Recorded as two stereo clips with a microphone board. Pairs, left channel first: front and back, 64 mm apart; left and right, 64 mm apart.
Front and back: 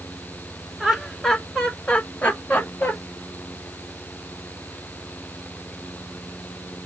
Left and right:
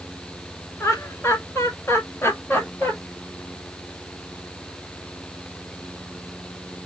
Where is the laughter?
95° left, 1.5 m; by 2.9 s 50° left, 1.9 m.